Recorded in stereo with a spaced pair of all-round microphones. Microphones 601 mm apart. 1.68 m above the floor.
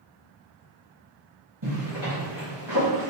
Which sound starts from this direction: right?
A zipper, at 1.6 s.